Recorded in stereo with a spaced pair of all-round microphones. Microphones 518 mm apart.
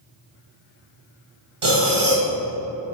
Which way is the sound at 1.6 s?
65° right (ahead or behind).